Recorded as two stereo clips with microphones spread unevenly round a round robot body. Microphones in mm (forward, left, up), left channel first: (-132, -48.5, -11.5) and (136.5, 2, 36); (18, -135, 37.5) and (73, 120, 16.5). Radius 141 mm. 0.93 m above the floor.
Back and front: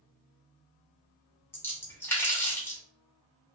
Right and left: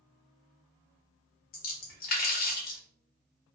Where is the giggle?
I don't hear a giggle.